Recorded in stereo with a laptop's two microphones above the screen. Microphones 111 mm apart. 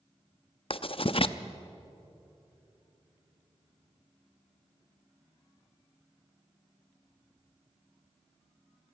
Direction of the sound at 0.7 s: 55° left (ahead or behind).